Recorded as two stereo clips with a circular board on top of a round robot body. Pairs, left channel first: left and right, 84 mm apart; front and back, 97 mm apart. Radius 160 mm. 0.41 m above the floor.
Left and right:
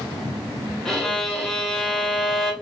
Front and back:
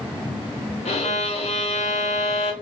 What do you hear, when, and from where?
0.8 s a violin: 5° left, 0.7 m